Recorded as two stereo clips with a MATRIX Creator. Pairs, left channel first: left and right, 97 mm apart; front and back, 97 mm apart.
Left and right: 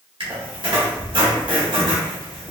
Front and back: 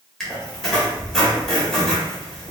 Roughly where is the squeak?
Right.